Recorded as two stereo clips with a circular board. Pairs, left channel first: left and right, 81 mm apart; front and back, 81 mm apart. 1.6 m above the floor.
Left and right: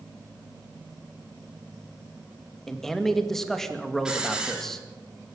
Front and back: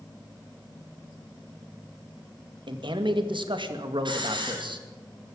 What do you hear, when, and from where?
2.7 s a man speaking: 175° left, 2 m
4.0 s a hiss: 170° right, 5 m